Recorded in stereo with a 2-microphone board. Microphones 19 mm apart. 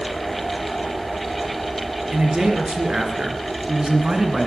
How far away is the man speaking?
About 3.5 m.